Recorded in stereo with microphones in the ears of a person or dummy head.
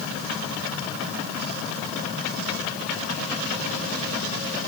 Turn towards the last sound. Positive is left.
No sound to turn to.